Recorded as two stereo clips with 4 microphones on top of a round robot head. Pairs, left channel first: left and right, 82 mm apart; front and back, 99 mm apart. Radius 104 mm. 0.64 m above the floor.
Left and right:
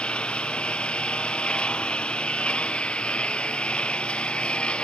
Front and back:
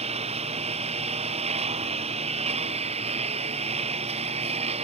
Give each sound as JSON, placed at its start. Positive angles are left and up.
{"t": 0.0, "sound": "a lawn mower", "azimuth_deg": 165}